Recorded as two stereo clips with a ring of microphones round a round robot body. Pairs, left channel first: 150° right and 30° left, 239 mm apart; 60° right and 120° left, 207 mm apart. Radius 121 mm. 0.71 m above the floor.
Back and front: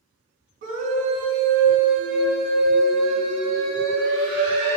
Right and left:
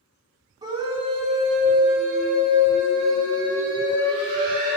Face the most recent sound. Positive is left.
turn(degrees=130)